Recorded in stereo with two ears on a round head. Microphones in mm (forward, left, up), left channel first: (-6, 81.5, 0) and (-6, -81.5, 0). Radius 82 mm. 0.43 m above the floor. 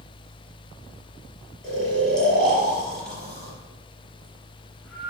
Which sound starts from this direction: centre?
Snoring, at 1.6 s.